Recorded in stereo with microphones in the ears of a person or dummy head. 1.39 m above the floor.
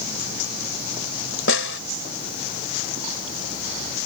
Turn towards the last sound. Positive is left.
turn(degrees=70)  # may be behind; listen again after turning